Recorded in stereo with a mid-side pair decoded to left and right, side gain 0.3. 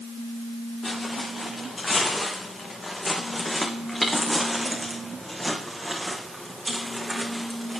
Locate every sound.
0.8 s footsteps: 50° left, 4.5 m; by 7.8 s 45° right, 4 m